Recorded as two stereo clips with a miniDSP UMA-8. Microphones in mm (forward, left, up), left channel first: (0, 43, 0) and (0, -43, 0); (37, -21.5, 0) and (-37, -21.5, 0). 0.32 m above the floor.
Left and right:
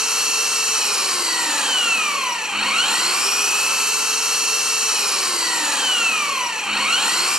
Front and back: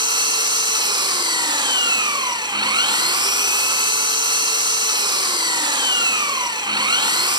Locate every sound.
0.0 s an engine running: 175° right, 0.9 m